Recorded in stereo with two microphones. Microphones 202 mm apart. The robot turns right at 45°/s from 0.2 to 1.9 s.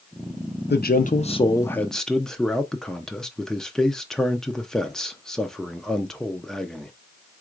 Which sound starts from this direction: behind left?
A man speaking, at 0.7 s.